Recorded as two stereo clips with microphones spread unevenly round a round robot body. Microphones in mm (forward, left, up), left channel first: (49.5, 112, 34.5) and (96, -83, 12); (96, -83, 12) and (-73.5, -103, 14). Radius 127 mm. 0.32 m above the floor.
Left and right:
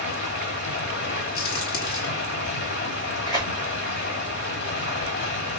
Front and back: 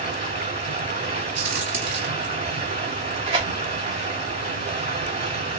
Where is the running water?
130° left, 1.8 m.